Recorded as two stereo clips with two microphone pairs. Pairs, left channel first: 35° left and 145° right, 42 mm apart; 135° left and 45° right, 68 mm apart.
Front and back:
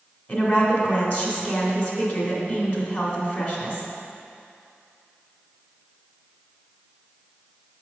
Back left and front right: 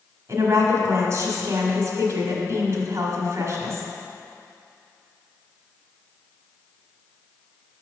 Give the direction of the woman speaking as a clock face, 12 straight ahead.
12 o'clock.